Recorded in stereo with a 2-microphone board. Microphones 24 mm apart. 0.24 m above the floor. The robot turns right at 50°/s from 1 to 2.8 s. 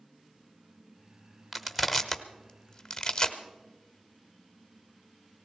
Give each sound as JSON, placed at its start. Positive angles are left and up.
{"t": 1.5, "sound": "crushing", "side_deg": -10, "distance_m": 1.0}